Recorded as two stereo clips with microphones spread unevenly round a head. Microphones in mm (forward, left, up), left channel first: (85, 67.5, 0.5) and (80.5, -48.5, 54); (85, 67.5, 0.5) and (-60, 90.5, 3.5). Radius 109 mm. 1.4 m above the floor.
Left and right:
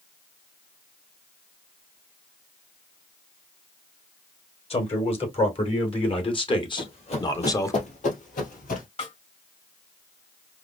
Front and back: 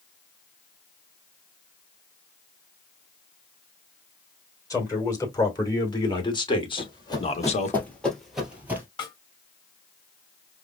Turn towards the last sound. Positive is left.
turn(degrees=50)